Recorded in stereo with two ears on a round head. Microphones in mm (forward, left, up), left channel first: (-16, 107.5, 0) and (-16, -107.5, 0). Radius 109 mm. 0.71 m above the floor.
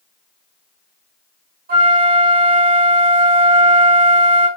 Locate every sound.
1.7 s a flute: 40° right (ahead or behind), 3.5 m